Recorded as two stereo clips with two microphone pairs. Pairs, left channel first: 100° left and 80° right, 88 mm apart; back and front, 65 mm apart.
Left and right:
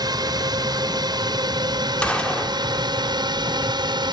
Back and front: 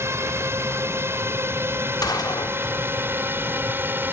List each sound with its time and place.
0.0 s a drone: 45° right; by 4.1 s 55° right
2.0 s a gunshot: 175° left